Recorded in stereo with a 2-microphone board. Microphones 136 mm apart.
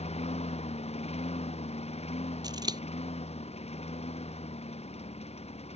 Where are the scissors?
30° right (ahead or behind).